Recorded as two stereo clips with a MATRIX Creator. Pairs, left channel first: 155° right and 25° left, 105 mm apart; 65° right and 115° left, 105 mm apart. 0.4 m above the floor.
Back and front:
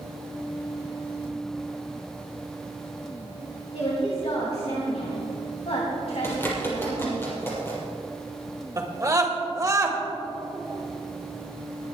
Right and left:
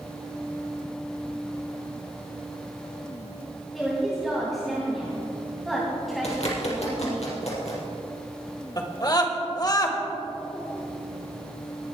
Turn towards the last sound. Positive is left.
turn(degrees=-30)